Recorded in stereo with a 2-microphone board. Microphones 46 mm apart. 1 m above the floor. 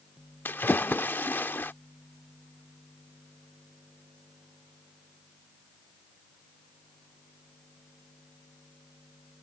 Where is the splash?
50° left (ahead or behind).